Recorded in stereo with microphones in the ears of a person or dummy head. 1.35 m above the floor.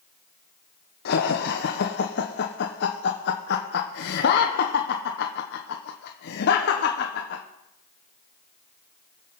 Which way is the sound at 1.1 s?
50° left (ahead or behind).